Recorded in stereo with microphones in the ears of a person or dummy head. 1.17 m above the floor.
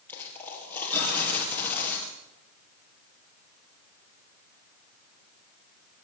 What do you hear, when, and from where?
0.1 s a dropped coin: 10° left (ahead or behind), 3.5 m